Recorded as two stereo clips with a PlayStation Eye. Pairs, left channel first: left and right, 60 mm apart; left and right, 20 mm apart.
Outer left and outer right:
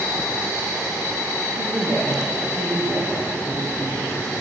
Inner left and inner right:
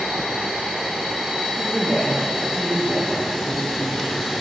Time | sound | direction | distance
1.5 | a woman speaking | 45° right (ahead or behind) | 4 m